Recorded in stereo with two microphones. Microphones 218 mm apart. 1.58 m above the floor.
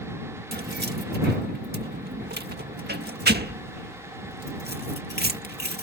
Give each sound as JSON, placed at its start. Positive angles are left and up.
{"t": 0.5, "sound": "keys jangling", "side_deg": -50}